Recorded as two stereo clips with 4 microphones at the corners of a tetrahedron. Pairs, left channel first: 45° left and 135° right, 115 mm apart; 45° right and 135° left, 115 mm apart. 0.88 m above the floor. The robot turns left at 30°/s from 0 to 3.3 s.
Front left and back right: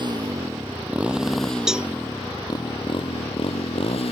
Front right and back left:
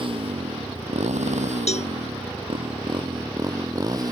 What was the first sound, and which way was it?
A motorcycle, 175° left.